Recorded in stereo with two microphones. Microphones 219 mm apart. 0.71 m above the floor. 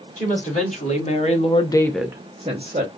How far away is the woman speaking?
About 1.9 m.